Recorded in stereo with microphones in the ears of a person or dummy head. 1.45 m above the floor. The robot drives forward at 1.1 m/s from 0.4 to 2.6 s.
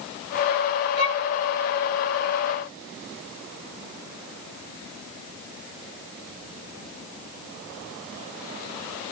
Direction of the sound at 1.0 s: 30° left (ahead or behind).